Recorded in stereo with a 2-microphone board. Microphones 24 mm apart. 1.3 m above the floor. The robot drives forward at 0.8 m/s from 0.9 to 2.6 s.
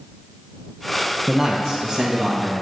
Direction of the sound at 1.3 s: 15° right (ahead or behind).